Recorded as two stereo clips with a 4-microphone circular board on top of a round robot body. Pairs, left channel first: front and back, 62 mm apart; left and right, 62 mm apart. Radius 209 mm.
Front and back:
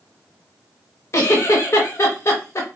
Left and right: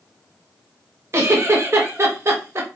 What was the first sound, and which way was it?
A giggle, 45° right.